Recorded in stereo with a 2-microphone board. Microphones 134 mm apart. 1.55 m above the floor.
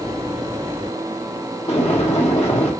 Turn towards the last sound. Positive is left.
turn(degrees=55)  # may be behind; listen again after turning